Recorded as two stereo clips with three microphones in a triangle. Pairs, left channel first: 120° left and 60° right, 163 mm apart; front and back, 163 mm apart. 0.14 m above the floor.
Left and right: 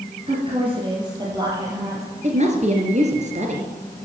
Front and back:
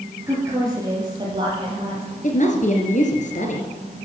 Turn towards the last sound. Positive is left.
turn(degrees=-25)